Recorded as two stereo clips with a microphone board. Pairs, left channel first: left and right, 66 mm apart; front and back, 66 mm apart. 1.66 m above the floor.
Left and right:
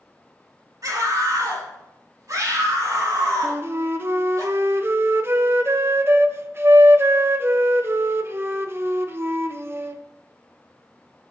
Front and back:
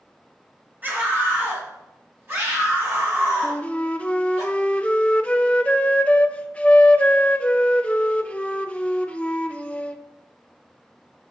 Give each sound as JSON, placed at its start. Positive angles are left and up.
{"t": 0.8, "sound": "a scream", "azimuth_deg": -120, "distance_m": 4.0}
{"t": 3.4, "sound": "a flute", "azimuth_deg": -60, "distance_m": 0.7}